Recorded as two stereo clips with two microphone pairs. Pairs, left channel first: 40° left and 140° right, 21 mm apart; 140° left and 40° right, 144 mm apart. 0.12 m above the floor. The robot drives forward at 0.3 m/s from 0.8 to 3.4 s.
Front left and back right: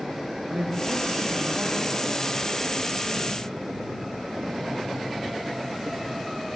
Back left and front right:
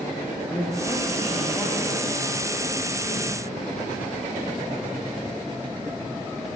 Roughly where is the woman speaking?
Behind right.